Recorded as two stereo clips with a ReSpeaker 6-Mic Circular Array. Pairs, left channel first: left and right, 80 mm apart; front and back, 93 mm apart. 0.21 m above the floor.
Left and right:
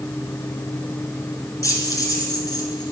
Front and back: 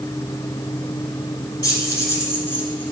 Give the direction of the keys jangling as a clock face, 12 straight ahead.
10 o'clock.